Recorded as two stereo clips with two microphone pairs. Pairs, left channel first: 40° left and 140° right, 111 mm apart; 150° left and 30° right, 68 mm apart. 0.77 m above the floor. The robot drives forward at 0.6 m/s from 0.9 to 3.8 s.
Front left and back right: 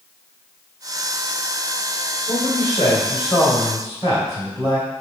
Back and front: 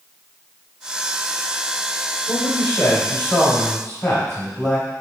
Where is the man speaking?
85° left, 3.5 m; by 4.9 s 100° left, 3.5 m.